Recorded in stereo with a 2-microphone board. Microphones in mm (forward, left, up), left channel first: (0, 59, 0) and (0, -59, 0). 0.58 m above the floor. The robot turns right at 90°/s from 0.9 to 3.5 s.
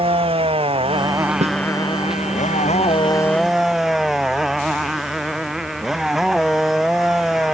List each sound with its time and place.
0.0 s a motorcycle: 50° right; by 7.5 s 175° right
1.4 s a snare drum: 70° right (ahead or behind); by 1.6 s 55° right (ahead or behind)